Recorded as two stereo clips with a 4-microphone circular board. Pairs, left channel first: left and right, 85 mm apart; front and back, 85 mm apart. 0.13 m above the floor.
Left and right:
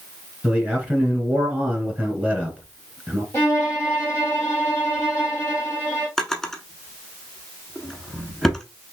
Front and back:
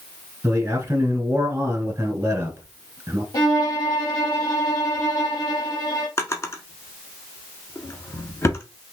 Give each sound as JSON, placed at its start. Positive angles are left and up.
{"t": 0.4, "sound": "a man speaking", "azimuth_deg": -150, "distance_m": 1.9}
{"t": 3.3, "sound": "a violin", "azimuth_deg": 30, "distance_m": 2.5}
{"t": 6.2, "sound": "a drawer", "azimuth_deg": 10, "distance_m": 0.8}